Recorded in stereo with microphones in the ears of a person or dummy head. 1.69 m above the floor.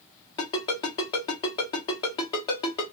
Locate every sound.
0.4 s a ringtone: 20° left (ahead or behind), 0.8 m